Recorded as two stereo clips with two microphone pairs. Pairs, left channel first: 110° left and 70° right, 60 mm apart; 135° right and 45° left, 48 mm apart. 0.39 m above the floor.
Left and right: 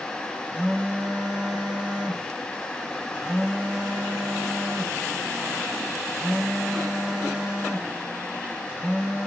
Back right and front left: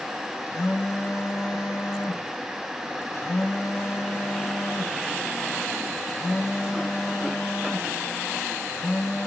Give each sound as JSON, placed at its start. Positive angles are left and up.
{"t": 0.5, "sound": "a phone buzzing", "azimuth_deg": -130, "distance_m": 0.8}